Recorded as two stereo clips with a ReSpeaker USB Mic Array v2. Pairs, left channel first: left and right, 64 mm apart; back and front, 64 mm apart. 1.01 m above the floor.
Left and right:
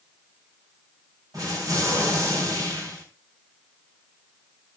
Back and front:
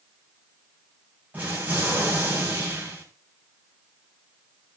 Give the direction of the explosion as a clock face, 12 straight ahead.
2 o'clock.